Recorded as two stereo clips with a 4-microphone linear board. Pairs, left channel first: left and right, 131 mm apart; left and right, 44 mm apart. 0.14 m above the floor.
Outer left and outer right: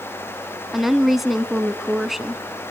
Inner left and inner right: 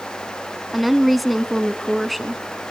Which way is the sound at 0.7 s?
Centre (ahead or behind).